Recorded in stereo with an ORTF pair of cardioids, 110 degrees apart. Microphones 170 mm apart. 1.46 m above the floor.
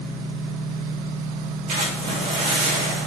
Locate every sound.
1.7 s a splash: 50° right, 3.5 m